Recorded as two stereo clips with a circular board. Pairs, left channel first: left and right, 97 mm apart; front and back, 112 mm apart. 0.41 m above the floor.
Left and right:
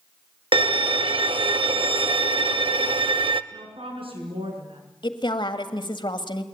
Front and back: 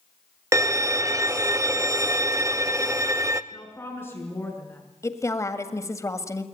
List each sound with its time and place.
0.5 s a violin: 115° right, 0.7 m
3.5 s a woman speaking: 70° right, 6 m
5.0 s a woman speaking: 60° left, 1.7 m